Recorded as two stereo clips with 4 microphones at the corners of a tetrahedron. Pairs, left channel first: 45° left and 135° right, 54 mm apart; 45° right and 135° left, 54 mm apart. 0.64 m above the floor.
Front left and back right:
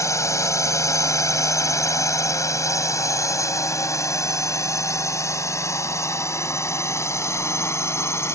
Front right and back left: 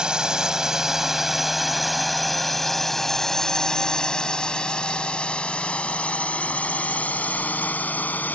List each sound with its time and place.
0.0 s a drone: 60° left; by 8.3 s 15° left